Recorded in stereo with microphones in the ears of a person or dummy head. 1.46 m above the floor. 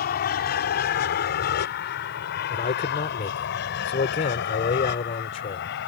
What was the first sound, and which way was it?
An aircraft, 45° left (ahead or behind).